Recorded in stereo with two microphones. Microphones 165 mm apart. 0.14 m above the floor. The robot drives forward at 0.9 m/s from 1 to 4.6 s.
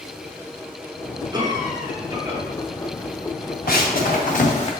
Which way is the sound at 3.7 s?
65° left (ahead or behind).